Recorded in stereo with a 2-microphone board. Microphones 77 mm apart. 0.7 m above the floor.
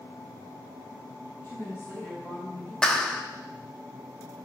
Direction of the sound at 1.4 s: 30° left (ahead or behind).